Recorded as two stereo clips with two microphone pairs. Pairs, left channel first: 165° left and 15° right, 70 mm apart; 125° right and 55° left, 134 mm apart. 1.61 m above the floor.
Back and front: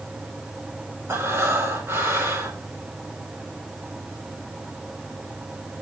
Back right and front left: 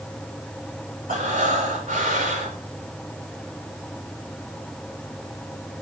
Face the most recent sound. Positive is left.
turn(degrees=40)